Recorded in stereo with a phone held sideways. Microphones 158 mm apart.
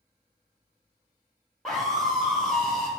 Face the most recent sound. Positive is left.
turn(degrees=5)  # may be behind; listen again after turning